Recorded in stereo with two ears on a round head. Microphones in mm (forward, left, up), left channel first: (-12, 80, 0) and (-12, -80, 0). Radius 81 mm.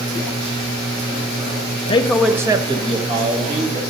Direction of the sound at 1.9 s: 30° left (ahead or behind).